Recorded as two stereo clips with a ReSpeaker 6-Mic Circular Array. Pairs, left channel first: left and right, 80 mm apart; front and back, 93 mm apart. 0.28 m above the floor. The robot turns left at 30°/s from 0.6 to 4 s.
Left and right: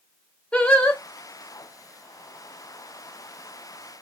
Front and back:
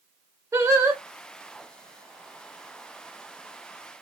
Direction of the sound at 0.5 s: 155° left.